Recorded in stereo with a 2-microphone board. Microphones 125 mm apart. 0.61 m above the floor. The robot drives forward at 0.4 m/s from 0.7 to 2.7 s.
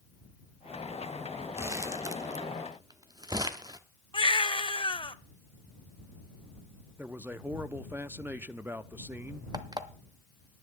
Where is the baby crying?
40° left (ahead or behind), 0.6 m.